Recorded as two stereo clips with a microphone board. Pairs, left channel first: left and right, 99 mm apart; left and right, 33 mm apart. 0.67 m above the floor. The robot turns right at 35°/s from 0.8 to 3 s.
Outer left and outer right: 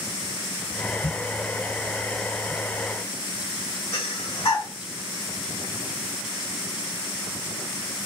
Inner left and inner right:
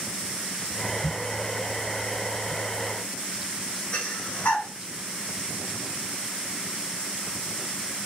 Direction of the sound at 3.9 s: 50° left (ahead or behind).